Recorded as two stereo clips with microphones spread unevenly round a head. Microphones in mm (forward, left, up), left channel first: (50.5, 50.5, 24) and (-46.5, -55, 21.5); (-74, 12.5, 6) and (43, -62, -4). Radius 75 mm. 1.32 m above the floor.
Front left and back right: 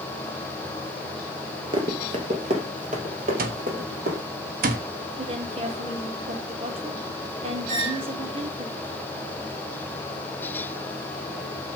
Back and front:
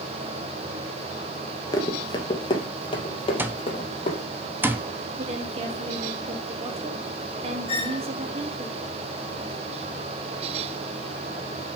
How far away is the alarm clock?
About 1.0 m.